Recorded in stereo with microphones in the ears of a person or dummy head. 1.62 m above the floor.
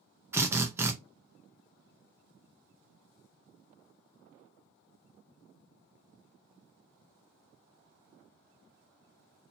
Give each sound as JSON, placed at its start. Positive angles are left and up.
{"t": 0.3, "sound": "a drill", "side_deg": -10, "distance_m": 0.7}